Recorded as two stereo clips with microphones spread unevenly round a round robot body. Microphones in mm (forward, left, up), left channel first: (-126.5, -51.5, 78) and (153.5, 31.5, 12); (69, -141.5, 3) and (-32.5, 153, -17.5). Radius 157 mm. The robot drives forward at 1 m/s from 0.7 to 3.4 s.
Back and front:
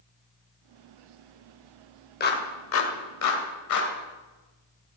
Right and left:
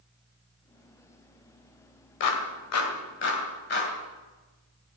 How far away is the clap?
About 2.0 m.